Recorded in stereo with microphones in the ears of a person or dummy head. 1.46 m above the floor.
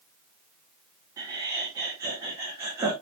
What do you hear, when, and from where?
1.2 s laughter: 20° right (ahead or behind), 3.5 m